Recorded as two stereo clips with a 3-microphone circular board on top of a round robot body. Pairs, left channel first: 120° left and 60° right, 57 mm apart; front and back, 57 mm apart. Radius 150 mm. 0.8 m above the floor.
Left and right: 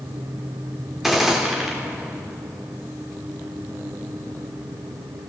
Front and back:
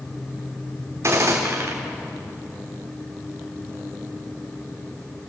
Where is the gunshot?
145° right, 3 m.